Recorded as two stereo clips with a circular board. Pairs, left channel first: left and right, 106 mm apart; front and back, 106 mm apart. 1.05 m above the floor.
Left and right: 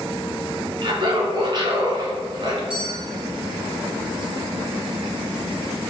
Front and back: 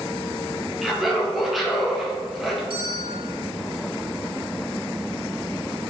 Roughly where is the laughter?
Right.